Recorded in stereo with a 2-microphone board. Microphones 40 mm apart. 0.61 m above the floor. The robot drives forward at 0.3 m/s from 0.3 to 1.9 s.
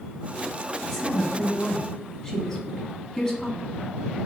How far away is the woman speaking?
About 1.4 m.